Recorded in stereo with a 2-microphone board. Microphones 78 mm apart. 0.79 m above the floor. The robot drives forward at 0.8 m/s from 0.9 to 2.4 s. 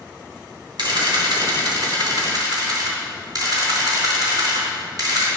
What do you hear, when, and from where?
0.8 s a camera shutter: 75° right (ahead or behind), 2.5 m; by 5.3 s 55° right (ahead or behind), 3.5 m